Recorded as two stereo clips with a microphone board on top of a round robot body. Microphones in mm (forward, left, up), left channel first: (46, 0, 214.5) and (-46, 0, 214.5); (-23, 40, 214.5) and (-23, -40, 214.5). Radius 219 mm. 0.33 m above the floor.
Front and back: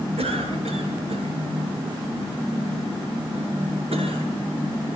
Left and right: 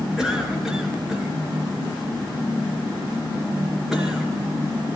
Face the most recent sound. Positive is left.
turn(degrees=-170)